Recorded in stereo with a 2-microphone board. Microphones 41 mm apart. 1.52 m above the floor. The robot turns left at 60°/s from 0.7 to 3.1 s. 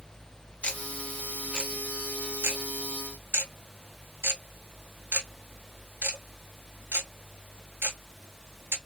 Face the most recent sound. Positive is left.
turn(degrees=-55)  # may be behind; listen again after turning